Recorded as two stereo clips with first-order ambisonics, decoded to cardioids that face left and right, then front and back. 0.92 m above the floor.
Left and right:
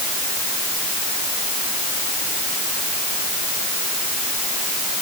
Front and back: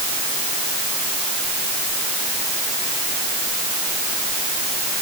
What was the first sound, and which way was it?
Only background noise.